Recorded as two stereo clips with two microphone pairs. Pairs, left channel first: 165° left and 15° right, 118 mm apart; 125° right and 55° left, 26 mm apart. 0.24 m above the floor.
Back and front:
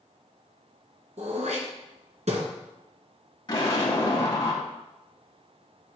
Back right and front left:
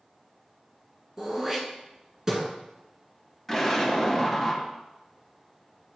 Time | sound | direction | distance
1.2 | throat clearing | 10° right | 1.4 m
3.5 | an explosion | 155° left | 1.9 m